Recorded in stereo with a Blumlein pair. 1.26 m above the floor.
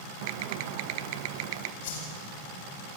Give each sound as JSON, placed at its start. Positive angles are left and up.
{"t": 0.2, "sound": "typing on a keyboard", "azimuth_deg": -45, "distance_m": 0.9}
{"t": 1.8, "sound": "a whoosh", "azimuth_deg": 55, "distance_m": 7.0}